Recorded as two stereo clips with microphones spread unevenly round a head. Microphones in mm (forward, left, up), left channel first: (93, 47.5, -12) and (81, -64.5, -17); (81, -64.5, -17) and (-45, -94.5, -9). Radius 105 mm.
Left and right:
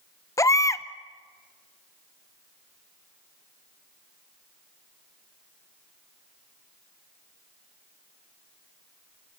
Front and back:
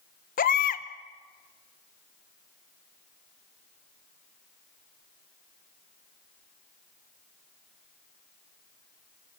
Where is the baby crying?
20° left, 0.9 m.